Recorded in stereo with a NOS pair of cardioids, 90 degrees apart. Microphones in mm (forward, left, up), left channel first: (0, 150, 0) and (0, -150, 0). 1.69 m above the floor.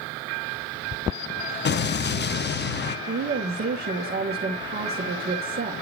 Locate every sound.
1.6 s an explosion: 35° left, 1.0 m
3.1 s a woman speaking: 30° right, 2 m